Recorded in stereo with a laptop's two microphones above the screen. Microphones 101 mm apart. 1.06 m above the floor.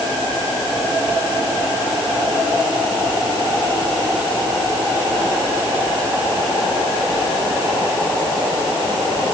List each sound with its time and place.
Only background noise.